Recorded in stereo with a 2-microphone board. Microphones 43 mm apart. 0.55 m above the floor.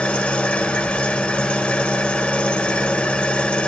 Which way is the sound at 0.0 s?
30° left (ahead or behind).